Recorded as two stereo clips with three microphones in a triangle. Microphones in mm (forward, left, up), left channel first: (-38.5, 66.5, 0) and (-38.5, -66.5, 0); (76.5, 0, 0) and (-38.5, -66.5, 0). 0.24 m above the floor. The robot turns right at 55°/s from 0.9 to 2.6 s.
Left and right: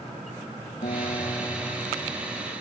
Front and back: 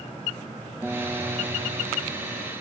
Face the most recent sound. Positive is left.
turn(degrees=-140)